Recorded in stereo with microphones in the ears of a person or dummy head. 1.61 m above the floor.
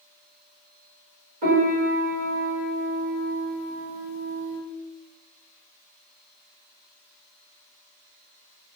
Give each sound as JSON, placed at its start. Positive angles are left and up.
{"t": 1.4, "sound": "a piano", "side_deg": -45, "distance_m": 1.8}